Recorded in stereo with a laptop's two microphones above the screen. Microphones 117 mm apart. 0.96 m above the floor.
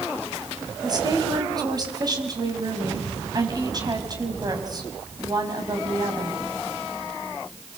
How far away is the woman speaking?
About 6 m.